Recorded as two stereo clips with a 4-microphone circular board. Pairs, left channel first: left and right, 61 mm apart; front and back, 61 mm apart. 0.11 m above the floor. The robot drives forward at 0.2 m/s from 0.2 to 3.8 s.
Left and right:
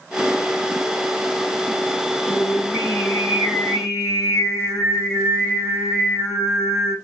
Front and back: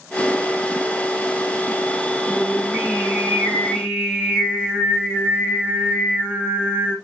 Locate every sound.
2.3 s singing: 80° left, 3 m; by 7.0 s 90° left, 3 m